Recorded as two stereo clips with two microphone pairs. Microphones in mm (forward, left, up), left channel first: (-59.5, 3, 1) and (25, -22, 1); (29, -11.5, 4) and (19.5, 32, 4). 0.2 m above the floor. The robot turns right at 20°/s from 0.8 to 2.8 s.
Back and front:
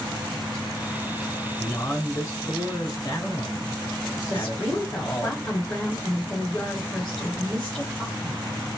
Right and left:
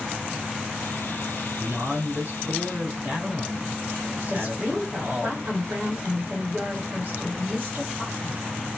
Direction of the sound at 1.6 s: 90° left.